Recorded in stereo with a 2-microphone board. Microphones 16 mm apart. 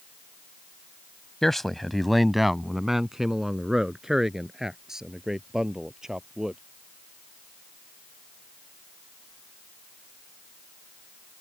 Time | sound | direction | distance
1.4 | a man speaking | 25° left (ahead or behind) | ?